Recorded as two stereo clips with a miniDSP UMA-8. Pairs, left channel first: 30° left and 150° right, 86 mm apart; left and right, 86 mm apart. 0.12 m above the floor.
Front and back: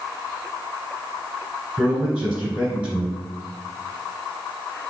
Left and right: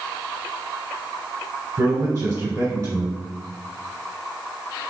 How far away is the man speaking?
About 1.8 m.